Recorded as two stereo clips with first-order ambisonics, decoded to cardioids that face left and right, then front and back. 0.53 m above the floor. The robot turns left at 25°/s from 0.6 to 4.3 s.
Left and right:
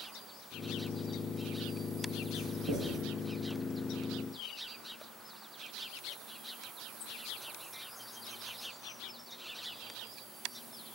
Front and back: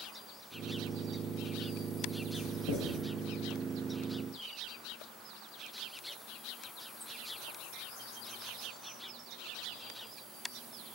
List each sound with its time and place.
2.3 s writing: 25° right, 0.7 m; by 2.9 s 40° right, 0.7 m